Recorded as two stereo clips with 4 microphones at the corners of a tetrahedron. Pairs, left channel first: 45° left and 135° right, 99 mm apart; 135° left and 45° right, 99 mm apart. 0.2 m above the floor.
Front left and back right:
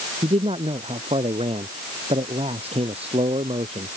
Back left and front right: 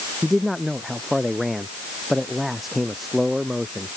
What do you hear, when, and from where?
0.2 s a man speaking: 135° right